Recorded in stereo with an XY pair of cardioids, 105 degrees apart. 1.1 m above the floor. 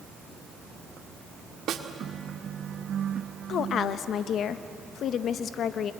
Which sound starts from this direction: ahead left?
A woman speaking, at 3.5 s.